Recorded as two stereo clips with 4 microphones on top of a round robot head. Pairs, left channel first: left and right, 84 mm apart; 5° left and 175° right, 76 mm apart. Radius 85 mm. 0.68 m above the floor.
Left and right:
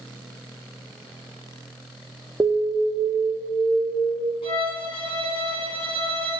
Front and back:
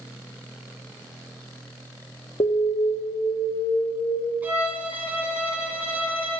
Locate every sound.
2.4 s an alarm: 20° right, 1.0 m
4.4 s a violin: 120° left, 1.8 m